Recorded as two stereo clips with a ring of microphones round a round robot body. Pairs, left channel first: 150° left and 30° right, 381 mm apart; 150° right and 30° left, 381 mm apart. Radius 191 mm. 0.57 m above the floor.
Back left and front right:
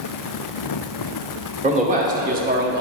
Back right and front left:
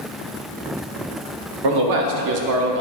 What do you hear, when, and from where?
1.6 s a man speaking: 40° left, 1.1 m; by 2.8 s 5° left, 0.6 m